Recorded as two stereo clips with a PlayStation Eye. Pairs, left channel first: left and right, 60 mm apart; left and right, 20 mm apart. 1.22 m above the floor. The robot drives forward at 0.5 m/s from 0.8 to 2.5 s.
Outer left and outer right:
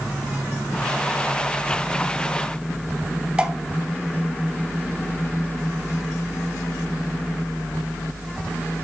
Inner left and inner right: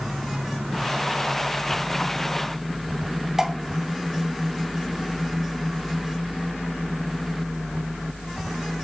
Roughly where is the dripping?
Centre.